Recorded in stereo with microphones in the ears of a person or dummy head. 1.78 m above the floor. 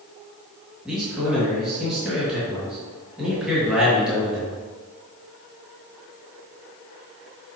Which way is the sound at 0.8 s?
Centre (ahead or behind).